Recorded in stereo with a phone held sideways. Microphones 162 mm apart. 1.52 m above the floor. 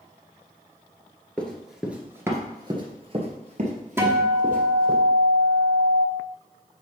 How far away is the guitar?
About 1.1 m.